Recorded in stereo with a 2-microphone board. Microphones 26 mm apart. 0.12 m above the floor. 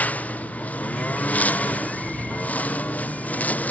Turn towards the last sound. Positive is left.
turn(degrees=80)